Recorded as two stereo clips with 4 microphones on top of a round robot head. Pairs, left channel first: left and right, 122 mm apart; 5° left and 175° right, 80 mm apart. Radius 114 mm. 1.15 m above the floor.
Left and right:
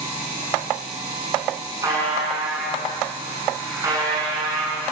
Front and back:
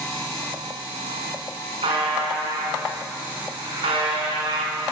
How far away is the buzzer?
About 6 m.